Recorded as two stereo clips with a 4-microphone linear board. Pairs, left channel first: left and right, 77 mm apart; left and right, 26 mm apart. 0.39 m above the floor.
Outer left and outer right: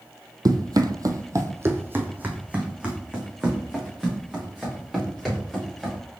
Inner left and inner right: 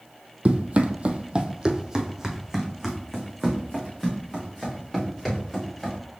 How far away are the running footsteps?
About 0.7 m.